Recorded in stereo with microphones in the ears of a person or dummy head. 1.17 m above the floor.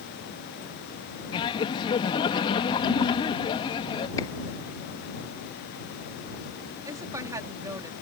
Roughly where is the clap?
Centre.